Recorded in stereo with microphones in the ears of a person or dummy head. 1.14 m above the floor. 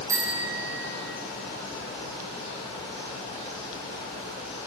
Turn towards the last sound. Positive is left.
turn(degrees=-20)  # may be behind; listen again after turning